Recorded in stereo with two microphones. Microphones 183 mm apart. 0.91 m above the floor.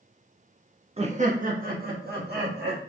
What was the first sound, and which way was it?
Laughter, 35° right (ahead or behind).